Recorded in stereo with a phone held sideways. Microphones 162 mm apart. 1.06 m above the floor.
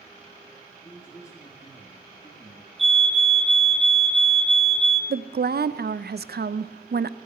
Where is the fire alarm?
Centre (ahead or behind), 1.5 m.